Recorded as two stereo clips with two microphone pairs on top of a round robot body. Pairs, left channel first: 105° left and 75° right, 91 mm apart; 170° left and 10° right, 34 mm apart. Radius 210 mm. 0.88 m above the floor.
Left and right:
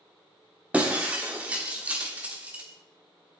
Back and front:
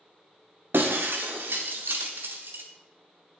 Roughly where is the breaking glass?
Ahead.